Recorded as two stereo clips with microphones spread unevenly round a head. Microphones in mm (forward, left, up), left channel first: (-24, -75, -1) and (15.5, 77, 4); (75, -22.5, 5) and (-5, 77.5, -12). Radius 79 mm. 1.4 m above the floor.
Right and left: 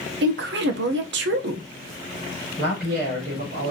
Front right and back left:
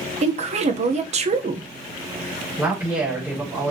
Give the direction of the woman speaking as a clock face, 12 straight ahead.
9 o'clock.